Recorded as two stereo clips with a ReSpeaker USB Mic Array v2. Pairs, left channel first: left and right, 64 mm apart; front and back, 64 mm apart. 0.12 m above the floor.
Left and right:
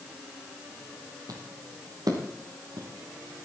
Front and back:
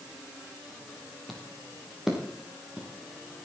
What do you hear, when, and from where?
1.3 s footsteps: 90° right, 3 m; by 2.9 s 100° right, 4 m